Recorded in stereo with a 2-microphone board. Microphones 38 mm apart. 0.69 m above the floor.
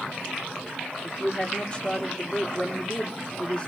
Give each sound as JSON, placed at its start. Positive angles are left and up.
{"t": 1.0, "sound": "a woman speaking", "side_deg": 25, "distance_m": 2.0}